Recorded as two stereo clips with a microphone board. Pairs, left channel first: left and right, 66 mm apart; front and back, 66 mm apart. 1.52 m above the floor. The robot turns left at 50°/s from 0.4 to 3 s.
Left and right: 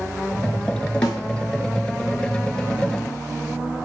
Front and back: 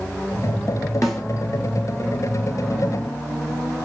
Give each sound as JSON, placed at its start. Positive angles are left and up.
{"t": 1.0, "sound": "a snare drum", "azimuth_deg": 90, "distance_m": 0.7}